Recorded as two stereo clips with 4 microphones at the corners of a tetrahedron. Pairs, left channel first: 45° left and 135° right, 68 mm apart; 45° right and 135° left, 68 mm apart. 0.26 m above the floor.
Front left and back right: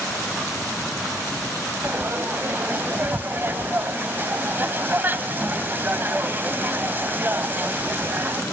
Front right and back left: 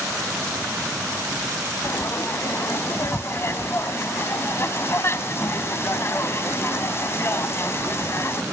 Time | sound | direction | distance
1.8 | frying | 85° right | 0.7 m